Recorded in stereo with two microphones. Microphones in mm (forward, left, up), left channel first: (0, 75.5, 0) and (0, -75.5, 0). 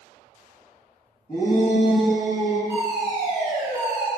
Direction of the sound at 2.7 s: 15° right (ahead or behind).